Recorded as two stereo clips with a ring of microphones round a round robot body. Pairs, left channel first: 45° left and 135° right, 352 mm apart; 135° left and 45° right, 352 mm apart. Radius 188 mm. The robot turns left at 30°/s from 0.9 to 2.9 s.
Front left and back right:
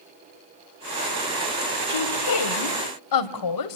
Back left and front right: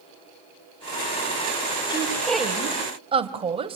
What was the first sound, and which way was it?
A woman speaking, 60° left.